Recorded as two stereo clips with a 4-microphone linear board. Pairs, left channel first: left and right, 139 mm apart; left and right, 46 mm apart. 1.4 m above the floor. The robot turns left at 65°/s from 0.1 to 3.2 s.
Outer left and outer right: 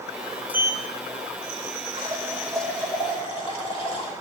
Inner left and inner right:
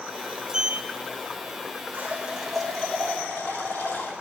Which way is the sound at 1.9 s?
140° right.